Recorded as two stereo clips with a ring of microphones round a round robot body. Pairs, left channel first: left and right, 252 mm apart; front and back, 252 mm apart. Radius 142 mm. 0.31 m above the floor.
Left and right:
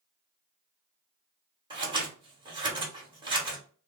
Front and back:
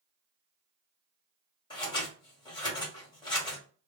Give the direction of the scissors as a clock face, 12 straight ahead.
2 o'clock.